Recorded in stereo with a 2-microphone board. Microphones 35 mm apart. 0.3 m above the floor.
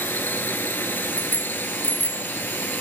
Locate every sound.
0.0 s a drone: 75° left (ahead or behind)
1.2 s a bicycle bell: 55° left (ahead or behind)